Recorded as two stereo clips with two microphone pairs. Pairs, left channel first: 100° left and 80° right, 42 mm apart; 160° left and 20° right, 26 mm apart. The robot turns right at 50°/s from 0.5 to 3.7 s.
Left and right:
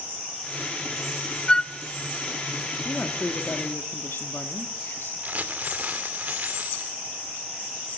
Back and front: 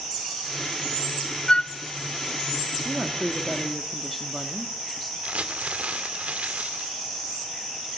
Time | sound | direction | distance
1.5 | a flute | 150° left | 0.6 m
2.9 | a woman speaking | 30° left | 1.5 m
5.2 | crumpling | 35° right | 2 m